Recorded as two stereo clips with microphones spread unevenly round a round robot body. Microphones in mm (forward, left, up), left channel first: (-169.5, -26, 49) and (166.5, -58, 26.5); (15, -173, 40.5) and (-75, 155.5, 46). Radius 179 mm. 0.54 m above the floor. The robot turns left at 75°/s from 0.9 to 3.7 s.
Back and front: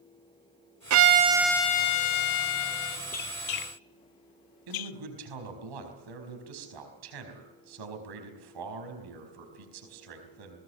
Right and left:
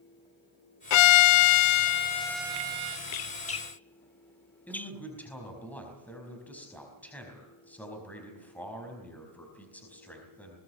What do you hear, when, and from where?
0.9 s a violin: 55° right, 0.7 m; by 3.0 s 150° left, 0.7 m
3.1 s a squeak: 115° right, 0.8 m; by 4.9 s 160° right, 0.8 m
4.7 s a man speaking: 10° left, 4.5 m